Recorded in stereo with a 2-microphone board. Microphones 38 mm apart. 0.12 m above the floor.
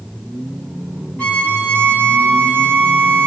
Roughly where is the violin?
Left.